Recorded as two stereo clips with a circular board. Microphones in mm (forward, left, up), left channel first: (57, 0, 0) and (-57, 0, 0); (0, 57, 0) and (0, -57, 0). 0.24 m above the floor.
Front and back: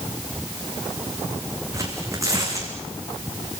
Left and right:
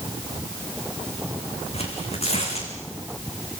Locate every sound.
1.7 s tearing paper: 115° left, 5 m